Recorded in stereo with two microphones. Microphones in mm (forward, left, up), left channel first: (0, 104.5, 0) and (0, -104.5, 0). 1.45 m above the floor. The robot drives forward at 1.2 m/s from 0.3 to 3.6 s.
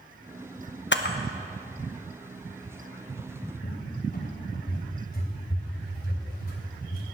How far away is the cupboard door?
About 3 m.